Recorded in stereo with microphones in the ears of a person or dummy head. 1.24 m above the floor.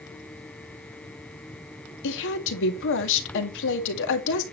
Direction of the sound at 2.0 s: 70° left (ahead or behind).